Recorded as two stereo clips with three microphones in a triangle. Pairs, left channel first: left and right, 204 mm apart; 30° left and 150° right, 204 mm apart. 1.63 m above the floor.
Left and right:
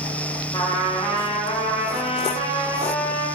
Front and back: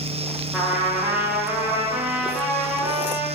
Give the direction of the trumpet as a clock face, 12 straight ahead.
8 o'clock.